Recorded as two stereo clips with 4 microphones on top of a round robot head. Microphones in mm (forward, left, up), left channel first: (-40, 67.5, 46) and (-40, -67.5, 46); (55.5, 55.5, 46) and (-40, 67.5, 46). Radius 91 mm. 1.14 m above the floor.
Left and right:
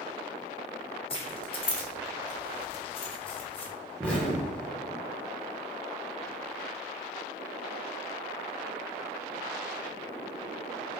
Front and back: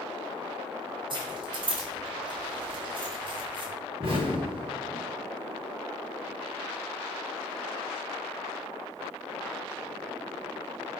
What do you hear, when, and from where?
1.1 s keys jangling: 140° left, 0.6 m
4.0 s an explosion: 170° left, 1.2 m